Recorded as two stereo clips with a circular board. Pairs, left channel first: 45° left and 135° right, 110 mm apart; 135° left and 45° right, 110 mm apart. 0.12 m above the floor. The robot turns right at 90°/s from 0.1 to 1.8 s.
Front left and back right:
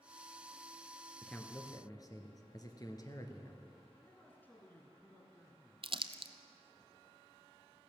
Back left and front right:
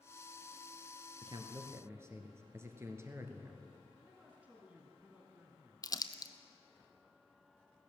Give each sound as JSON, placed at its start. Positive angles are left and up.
{"t": 1.2, "sound": "a man speaking", "azimuth_deg": -45, "distance_m": 1.4}
{"t": 4.0, "sound": "a man speaking", "azimuth_deg": 5, "distance_m": 1.5}
{"t": 5.8, "sound": "crumpling", "azimuth_deg": -170, "distance_m": 0.6}